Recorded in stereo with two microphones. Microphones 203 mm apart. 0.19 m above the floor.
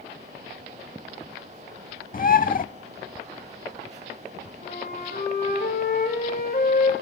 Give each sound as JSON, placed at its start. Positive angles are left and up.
{"t": 2.1, "sound": "a bird", "side_deg": 45, "distance_m": 0.5}
{"t": 4.6, "sound": "a flute", "side_deg": 45, "distance_m": 7.0}